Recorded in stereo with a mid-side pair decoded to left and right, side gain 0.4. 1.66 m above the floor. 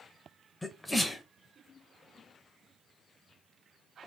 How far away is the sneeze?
About 1.0 m.